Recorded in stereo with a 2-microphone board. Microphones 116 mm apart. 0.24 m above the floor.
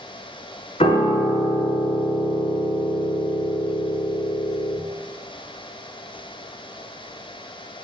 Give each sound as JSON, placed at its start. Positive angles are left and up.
{"t": 0.8, "sound": "a piano", "side_deg": 65, "distance_m": 0.7}